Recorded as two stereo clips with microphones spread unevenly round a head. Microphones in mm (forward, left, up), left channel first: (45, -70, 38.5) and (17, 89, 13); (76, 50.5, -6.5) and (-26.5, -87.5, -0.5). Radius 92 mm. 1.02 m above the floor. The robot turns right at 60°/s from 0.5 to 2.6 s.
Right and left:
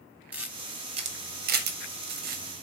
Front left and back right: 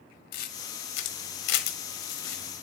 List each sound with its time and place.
0.3 s a camera shutter: 20° left, 1.4 m; by 2.6 s 145° left, 1.4 m